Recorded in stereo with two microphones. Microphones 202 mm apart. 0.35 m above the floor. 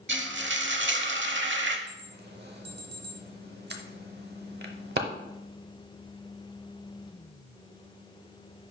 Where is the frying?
60° right (ahead or behind), 0.7 m.